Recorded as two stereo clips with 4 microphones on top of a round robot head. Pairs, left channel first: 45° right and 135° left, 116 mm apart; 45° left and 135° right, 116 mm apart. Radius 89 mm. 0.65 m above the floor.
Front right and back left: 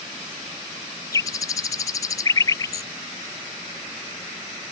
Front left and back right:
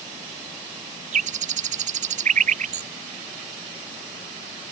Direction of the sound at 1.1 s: 110° right.